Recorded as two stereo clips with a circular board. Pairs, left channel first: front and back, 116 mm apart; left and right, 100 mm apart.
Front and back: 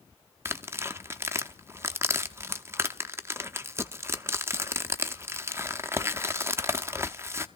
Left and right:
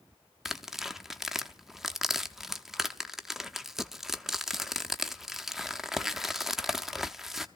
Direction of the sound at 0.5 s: 170° right.